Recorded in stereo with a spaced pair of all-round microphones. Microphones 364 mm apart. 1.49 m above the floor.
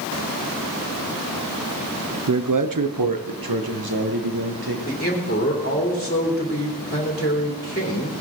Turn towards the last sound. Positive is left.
turn(degrees=25)  # may be behind; listen again after turning